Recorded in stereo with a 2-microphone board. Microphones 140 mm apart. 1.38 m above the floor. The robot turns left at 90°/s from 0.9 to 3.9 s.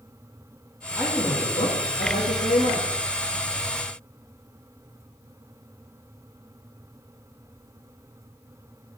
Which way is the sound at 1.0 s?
170° right.